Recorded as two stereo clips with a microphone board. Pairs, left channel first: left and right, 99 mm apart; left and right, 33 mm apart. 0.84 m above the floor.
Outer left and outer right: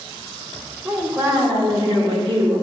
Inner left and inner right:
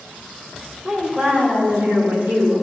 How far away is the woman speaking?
About 2 m.